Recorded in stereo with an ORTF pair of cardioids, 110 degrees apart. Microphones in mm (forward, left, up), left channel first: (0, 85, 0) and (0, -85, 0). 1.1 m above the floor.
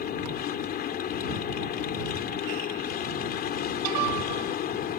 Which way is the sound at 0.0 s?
65° left.